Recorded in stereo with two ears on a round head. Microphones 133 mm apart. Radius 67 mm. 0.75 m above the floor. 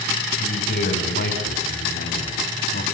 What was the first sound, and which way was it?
A man speaking, 80° left.